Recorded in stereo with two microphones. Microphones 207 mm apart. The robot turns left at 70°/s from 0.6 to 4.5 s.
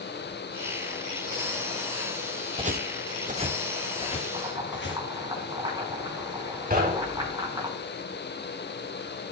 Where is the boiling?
30° right (ahead or behind), 3.5 m; by 7.7 s 20° right (ahead or behind), 3.5 m.